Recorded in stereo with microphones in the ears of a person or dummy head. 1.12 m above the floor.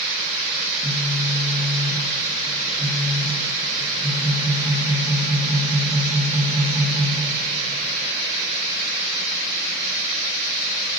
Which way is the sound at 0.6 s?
40° right (ahead or behind).